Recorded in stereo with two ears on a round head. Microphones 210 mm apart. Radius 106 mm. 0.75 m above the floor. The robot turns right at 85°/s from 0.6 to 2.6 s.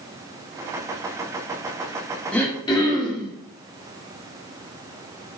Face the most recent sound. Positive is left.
turn(degrees=20)  # may be behind; listen again after turning